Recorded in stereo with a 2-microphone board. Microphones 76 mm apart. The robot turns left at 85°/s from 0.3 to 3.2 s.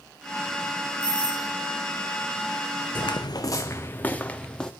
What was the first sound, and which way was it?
A doorbell, 105° left.